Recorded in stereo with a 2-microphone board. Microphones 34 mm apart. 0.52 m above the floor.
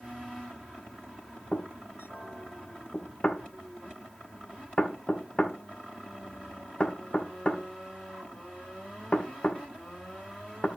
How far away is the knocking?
About 1.3 m.